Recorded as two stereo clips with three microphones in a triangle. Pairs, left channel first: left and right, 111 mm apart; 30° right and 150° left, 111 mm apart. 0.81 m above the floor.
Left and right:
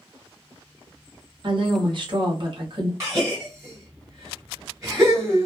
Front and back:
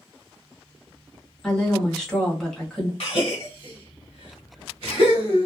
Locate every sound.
1.4 s a woman speaking: 110° right, 1.2 m
3.0 s a gasp: 30° right, 1.2 m